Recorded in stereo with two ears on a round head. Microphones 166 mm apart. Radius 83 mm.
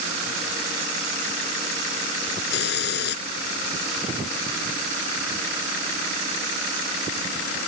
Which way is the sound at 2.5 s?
65° left (ahead or behind).